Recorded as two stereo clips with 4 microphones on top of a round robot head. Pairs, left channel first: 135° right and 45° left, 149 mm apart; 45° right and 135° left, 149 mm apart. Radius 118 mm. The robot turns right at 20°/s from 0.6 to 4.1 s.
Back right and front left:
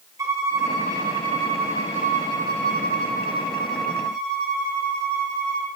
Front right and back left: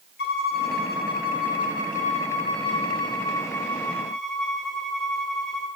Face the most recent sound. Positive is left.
turn(degrees=40)